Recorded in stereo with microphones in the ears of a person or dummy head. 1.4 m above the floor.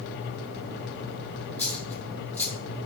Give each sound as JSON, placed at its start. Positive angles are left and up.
{"t": 1.6, "sound": "a dropped coin", "side_deg": 10, "distance_m": 1.4}